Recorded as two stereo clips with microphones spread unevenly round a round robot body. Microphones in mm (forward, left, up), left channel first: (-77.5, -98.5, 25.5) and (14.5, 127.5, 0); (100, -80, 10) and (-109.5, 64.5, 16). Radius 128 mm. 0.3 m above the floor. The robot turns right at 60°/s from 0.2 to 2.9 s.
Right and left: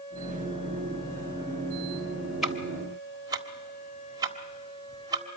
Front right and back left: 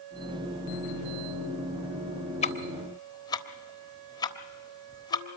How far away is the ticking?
About 1.3 m.